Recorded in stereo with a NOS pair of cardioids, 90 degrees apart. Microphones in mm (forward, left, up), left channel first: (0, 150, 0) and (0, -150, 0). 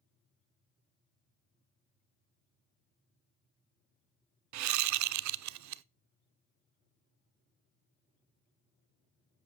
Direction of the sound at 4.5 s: 70° right.